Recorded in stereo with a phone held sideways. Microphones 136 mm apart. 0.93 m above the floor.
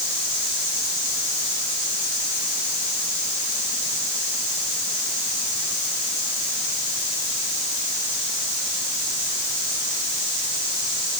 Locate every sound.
Only background noise.